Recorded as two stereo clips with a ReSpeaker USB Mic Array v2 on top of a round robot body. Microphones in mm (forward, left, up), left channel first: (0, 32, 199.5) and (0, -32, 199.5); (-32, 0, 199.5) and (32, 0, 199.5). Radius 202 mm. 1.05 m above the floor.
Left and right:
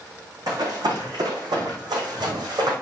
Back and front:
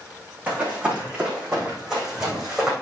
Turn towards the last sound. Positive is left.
turn(degrees=-85)